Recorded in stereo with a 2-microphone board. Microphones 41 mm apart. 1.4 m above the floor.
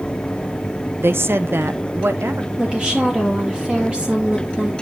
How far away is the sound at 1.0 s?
About 0.5 m.